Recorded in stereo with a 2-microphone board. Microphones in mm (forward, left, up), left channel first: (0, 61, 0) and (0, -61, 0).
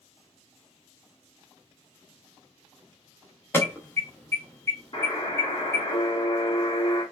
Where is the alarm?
20° left (ahead or behind), 0.8 m.